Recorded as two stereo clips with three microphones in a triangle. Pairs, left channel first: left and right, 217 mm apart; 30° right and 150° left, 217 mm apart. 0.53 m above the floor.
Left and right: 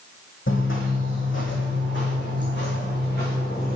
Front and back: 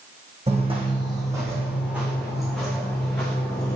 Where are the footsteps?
95° left, 1.6 m; by 3.8 s 50° left, 3 m.